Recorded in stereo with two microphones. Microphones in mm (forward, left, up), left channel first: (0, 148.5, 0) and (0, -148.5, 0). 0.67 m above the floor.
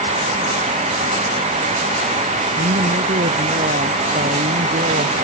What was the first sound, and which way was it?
A woman speaking, 35° right (ahead or behind).